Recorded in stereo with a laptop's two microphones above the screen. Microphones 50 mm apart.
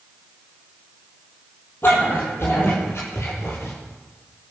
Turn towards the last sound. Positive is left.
turn(degrees=50)  # may be behind; listen again after turning